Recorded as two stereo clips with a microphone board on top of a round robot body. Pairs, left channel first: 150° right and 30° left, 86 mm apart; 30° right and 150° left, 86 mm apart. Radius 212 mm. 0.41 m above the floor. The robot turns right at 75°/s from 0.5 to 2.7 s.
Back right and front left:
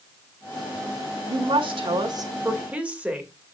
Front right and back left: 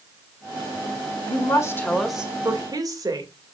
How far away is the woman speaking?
About 2 m.